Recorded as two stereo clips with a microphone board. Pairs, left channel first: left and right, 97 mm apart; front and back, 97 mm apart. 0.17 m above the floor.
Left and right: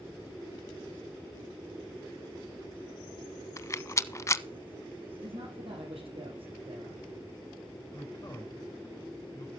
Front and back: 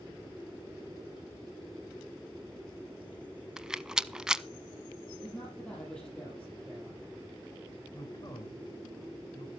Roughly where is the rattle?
Left.